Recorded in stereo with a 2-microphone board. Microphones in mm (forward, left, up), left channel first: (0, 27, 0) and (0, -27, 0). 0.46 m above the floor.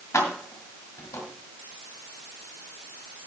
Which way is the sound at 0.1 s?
75° left (ahead or behind).